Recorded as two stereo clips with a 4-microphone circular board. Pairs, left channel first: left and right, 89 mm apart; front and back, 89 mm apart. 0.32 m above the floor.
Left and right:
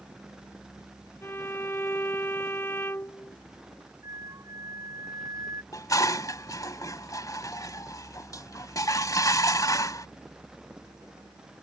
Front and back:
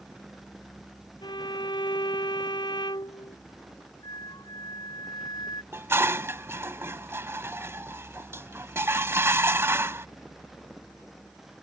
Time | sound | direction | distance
1.2 | a violin | 30° left | ?
4.0 | a flute | 40° right | ?
5.7 | dishes clattering | 125° left | ?